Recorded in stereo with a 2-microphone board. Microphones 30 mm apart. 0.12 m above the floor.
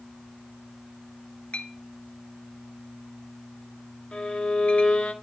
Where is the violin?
35° left (ahead or behind), 1.4 m.